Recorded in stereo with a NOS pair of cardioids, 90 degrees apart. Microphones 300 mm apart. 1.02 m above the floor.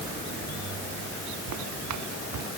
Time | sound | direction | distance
1.5 | footsteps | 65° right | ?